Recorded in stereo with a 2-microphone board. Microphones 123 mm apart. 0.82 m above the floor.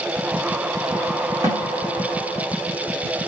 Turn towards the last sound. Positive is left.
turn(degrees=-30)  # may be behind; listen again after turning